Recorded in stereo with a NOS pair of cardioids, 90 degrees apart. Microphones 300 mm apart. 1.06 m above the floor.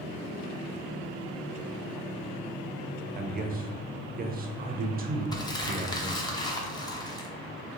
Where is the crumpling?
15° left, 0.5 m.